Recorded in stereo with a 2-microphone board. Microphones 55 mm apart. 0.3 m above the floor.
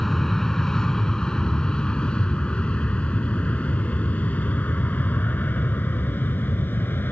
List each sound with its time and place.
0.0 s an aircraft: 5° left (ahead or behind); by 7.1 s 40° left (ahead or behind)